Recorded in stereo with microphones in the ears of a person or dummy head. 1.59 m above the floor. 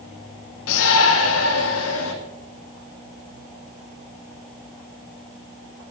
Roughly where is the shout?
Left.